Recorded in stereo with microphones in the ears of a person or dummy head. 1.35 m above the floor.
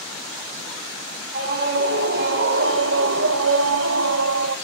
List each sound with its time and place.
1.3 s a scream: 55° right (ahead or behind), 3 m; by 4.6 s 75° right (ahead or behind), 1.8 m